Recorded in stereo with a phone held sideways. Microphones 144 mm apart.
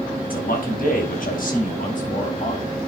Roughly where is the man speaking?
Left.